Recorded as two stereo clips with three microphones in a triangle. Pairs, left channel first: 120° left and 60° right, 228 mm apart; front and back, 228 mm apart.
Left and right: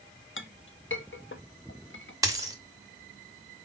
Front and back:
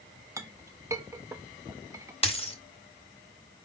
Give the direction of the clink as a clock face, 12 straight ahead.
9 o'clock.